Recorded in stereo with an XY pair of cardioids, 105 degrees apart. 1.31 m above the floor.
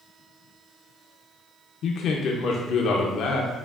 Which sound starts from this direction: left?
A man speaking, at 1.8 s.